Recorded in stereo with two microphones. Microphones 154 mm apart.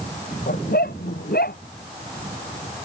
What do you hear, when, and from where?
0.5 s a dog barking: 85° left